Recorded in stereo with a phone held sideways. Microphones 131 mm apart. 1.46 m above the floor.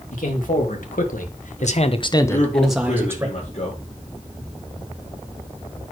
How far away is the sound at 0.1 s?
About 2.5 m.